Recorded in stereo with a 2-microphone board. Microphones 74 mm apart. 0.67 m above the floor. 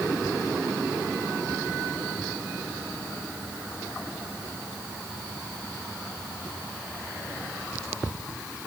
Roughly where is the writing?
I don't hear writing.